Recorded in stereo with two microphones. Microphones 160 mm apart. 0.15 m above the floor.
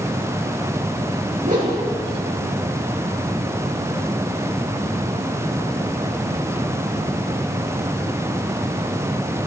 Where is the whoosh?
55° right (ahead or behind), 2.5 m.